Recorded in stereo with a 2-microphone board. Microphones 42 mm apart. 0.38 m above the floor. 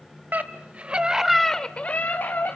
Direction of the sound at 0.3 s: 45° right (ahead or behind).